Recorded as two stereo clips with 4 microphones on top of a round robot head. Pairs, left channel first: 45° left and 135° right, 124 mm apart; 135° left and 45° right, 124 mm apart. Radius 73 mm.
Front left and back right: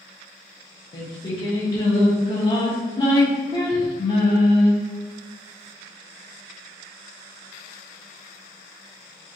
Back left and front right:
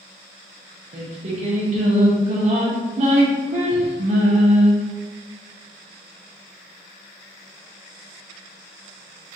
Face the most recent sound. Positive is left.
turn(degrees=-10)